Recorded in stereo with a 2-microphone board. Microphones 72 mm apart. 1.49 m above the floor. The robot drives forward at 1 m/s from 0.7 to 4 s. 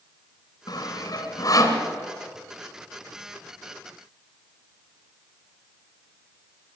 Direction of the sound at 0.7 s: 60° left (ahead or behind).